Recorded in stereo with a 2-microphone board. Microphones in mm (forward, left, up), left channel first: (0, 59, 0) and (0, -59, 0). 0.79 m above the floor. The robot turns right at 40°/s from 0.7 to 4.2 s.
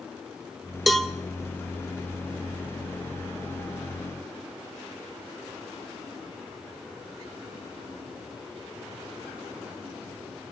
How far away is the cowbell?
About 1.2 m.